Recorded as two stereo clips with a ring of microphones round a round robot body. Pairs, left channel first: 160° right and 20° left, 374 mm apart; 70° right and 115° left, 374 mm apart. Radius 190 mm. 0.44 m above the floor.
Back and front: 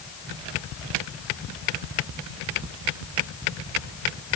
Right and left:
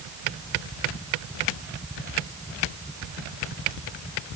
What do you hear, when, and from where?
Only background noise.